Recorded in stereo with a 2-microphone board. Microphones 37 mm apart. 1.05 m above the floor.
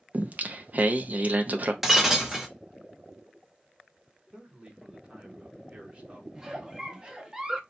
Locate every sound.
0.1 s singing: 45° right (ahead or behind), 0.5 m
1.8 s breaking glass: 5° right (ahead or behind), 0.8 m
4.3 s a man speaking: 20° right (ahead or behind), 1.1 m
6.3 s a giggle: 15° right (ahead or behind), 0.6 m